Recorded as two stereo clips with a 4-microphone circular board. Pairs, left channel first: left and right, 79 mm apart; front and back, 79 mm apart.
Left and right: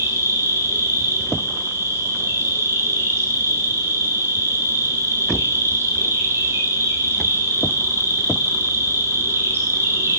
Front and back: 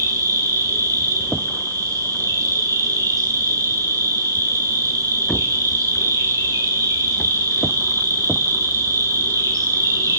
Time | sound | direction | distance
0.0 | an insect | 140° right | 3.5 m